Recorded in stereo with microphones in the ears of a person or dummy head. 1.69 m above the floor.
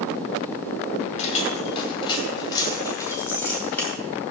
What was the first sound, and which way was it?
Keys jangling, 45° left (ahead or behind).